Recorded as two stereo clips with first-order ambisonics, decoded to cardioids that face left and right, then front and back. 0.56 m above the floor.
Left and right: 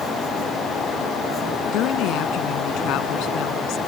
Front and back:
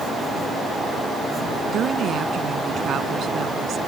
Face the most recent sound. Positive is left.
turn(degrees=125)